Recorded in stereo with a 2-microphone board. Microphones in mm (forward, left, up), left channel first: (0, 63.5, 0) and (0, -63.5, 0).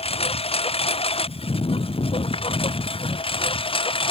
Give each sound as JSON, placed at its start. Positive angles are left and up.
{"t": 0.0, "sound": "a lawn mower", "side_deg": 50}